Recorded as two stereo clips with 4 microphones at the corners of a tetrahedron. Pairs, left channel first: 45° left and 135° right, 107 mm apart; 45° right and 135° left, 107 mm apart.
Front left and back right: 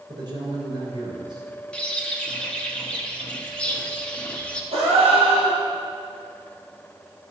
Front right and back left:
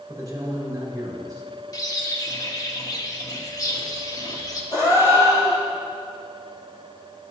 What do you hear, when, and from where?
0.1 s a man speaking: 175° right, 3 m
1.7 s a bird: 30° right, 1.0 m
4.7 s a gasp: 160° right, 3 m